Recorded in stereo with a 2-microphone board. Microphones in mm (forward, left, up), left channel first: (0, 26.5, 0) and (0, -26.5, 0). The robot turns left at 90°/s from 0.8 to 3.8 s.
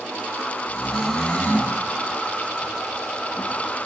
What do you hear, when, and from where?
0.7 s snoring: 155° right, 5 m; by 1.8 s 120° left, 5 m